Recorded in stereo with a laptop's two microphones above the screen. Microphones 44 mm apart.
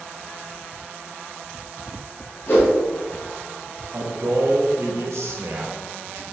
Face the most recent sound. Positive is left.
turn(degrees=-70)  # may be behind; listen again after turning